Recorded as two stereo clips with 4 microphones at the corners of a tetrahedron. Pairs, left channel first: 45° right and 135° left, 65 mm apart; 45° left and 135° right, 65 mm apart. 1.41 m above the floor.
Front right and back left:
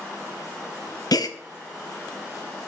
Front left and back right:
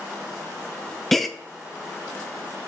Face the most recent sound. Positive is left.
turn(degrees=-40)